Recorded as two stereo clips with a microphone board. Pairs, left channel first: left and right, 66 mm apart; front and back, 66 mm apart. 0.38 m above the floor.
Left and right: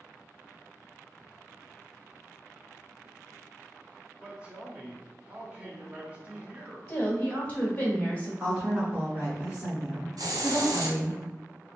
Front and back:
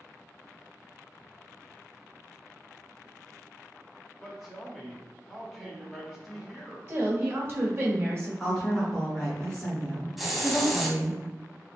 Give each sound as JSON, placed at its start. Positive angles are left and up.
{"t": 4.2, "sound": "a man speaking", "azimuth_deg": -85, "distance_m": 0.9}
{"t": 6.9, "sound": "a woman speaking", "azimuth_deg": 145, "distance_m": 1.4}
{"t": 8.4, "sound": "a woman speaking", "azimuth_deg": -65, "distance_m": 1.2}
{"t": 10.2, "sound": "a hiss", "azimuth_deg": -90, "distance_m": 0.7}